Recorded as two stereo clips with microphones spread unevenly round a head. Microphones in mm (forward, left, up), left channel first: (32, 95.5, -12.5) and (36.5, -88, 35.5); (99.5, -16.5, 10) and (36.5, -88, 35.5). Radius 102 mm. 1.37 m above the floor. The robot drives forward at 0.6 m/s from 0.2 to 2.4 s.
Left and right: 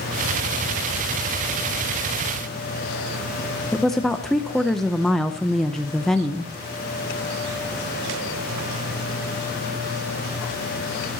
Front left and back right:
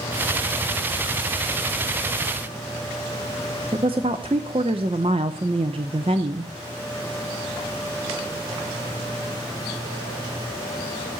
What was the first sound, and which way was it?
A woman speaking, 175° right.